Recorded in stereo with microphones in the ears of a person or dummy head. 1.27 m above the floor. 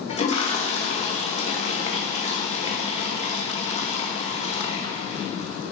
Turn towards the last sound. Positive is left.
turn(degrees=30)  # may be behind; listen again after turning